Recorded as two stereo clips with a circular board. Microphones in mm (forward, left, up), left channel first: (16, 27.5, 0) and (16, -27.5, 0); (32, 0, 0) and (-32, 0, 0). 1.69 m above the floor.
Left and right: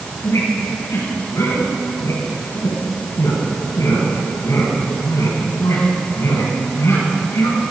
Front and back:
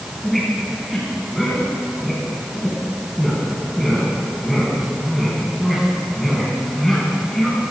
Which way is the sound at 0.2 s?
85° left.